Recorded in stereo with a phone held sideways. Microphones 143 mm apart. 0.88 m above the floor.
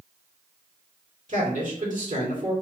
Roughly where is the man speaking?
Right.